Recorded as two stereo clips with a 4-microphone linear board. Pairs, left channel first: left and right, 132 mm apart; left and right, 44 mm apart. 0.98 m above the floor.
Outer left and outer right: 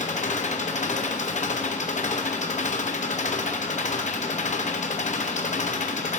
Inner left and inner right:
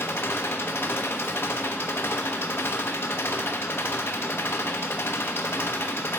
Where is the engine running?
65° left (ahead or behind), 0.7 m.